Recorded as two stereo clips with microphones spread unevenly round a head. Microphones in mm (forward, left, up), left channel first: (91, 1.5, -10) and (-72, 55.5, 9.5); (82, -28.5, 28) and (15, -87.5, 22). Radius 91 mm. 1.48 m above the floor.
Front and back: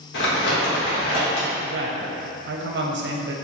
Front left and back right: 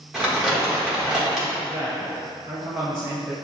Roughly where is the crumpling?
Ahead right.